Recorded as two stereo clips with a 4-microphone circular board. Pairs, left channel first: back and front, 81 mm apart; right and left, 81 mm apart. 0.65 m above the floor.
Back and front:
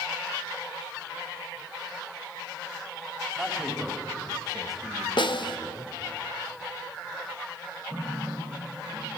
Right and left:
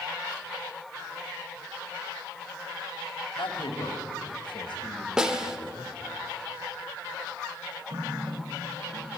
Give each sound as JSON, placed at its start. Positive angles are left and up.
{"t": 3.4, "sound": "a man speaking", "azimuth_deg": -85, "distance_m": 3.0}
{"t": 5.2, "sound": "a snare drum", "azimuth_deg": 170, "distance_m": 1.1}
{"t": 7.9, "sound": "a running tap", "azimuth_deg": 75, "distance_m": 7.5}